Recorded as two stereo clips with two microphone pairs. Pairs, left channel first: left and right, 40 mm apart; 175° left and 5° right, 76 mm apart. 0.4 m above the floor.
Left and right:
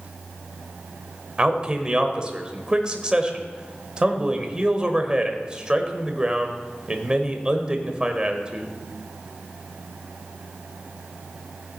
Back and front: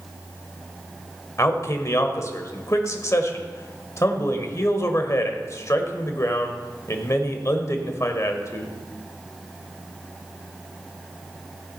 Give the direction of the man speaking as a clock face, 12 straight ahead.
5 o'clock.